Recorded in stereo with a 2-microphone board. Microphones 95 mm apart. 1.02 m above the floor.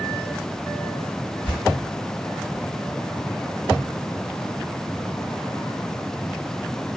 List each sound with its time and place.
1.4 s tearing paper: 10° right (ahead or behind), 1.7 m